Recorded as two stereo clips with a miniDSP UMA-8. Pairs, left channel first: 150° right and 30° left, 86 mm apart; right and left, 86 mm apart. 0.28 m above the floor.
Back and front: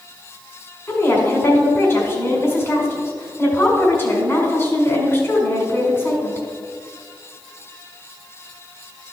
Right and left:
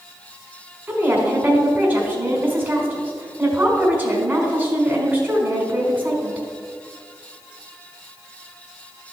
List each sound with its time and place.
0.9 s a woman speaking: 160° left, 1.7 m